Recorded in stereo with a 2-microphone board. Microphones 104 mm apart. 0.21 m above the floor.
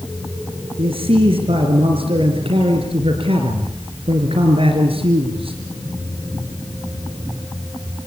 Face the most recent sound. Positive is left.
turn(degrees=-65)  # may be behind; listen again after turning